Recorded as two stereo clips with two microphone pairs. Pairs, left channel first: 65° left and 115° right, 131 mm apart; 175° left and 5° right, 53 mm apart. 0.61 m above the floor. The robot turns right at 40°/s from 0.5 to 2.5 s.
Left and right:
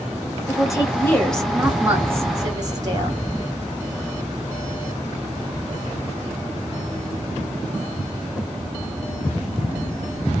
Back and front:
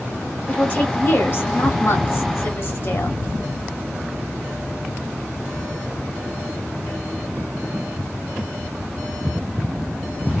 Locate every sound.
0.5 s a woman speaking: 115° left, 1.8 m; by 3.2 s 165° right, 1.8 m